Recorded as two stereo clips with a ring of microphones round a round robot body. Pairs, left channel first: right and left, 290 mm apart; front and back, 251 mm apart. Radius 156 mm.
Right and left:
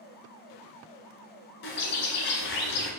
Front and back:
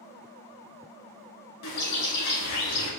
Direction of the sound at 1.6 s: 35° right.